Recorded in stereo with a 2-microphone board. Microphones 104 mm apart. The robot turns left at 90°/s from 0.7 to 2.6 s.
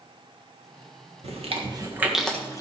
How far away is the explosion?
I don't hear an explosion.